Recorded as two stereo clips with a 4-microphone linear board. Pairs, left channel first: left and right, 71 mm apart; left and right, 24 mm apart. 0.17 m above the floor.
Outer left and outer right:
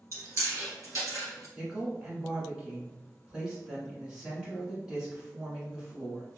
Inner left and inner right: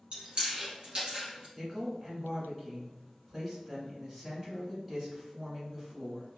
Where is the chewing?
45° right (ahead or behind), 1.9 m.